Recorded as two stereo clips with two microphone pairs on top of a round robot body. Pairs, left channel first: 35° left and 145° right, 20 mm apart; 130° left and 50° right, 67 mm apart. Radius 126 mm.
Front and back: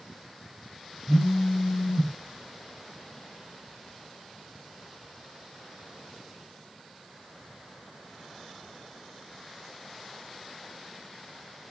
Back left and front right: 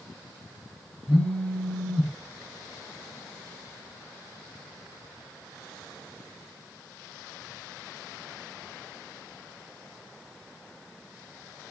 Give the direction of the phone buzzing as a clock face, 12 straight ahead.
10 o'clock.